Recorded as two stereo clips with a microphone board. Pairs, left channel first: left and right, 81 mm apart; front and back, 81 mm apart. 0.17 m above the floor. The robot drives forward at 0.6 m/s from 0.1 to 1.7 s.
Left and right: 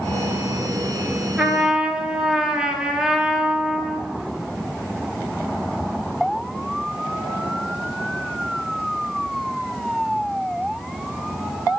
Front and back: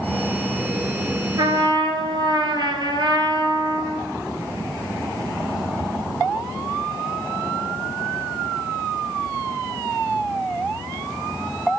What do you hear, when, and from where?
1.4 s a trumpet: 165° right, 0.6 m; by 4.1 s 170° right, 0.8 m